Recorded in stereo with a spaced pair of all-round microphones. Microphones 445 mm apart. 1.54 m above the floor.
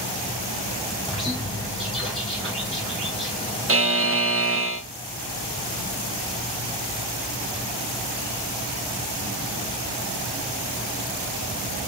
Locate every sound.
1.1 s a bird: centre (ahead or behind), 2.5 m
3.7 s a buzzer: 30° right (ahead or behind), 0.6 m